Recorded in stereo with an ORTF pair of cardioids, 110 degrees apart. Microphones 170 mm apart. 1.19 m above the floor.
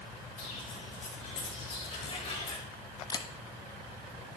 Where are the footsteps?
50° left, 6 m; by 2.6 s 35° left, 5 m.